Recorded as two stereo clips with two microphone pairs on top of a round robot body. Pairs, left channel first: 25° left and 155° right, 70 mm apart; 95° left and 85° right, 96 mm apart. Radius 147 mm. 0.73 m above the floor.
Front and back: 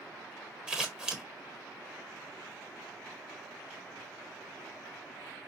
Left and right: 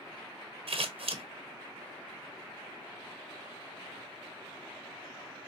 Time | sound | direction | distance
0.7 | scissors | 80° right | 1.1 m